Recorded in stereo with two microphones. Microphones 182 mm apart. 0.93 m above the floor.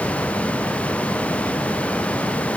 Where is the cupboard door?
No cupboard door in this recording.